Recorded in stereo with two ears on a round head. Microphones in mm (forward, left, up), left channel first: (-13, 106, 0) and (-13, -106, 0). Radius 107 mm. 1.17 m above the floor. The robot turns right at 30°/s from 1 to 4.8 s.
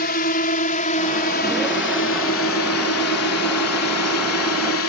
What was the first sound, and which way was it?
A drone, 40° left (ahead or behind).